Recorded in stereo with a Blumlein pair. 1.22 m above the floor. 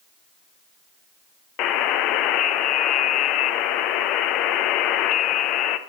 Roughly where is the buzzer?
Ahead left.